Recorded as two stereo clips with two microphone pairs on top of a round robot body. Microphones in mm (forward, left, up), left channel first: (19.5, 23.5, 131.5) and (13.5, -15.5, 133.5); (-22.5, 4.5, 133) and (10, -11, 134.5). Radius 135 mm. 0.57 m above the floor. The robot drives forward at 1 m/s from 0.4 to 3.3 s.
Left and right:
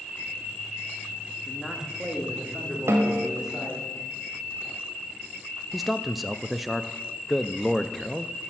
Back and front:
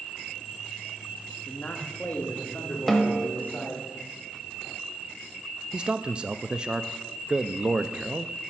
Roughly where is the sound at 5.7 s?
Ahead.